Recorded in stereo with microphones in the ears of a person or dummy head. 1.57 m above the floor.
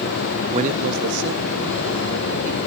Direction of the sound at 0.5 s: 25° right (ahead or behind).